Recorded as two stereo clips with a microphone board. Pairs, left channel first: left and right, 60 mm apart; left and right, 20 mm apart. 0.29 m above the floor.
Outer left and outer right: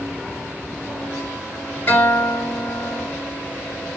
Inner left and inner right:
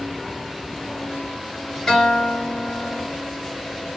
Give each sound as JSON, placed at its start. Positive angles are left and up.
{"t": 1.9, "sound": "a guitar", "side_deg": 40, "distance_m": 1.6}